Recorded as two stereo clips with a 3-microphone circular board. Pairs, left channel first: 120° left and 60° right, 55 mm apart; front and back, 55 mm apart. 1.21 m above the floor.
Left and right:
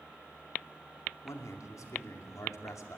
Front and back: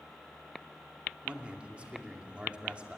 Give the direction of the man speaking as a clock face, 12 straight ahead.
8 o'clock.